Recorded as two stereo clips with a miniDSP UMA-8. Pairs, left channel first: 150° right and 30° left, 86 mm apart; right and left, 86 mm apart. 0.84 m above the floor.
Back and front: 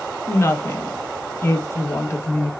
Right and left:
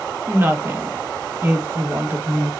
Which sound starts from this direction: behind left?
A woman speaking, at 0.3 s.